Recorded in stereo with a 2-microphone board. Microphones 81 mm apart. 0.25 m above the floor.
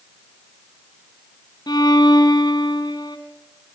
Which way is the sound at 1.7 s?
60° left (ahead or behind).